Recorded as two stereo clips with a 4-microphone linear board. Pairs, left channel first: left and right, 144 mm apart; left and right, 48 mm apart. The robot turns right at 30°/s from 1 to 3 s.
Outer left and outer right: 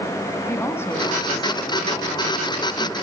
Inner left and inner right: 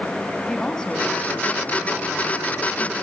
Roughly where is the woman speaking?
Ahead left.